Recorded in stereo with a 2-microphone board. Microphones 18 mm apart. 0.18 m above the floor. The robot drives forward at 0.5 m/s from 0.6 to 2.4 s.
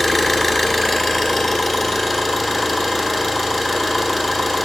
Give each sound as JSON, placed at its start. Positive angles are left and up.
{"t": 0.0, "sound": "an engine running", "side_deg": 10, "distance_m": 0.9}